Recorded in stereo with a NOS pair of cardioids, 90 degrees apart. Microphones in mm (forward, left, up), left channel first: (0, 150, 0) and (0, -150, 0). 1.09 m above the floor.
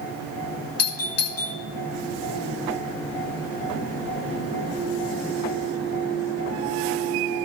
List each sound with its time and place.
0.8 s a doorbell: 55° left, 2.5 m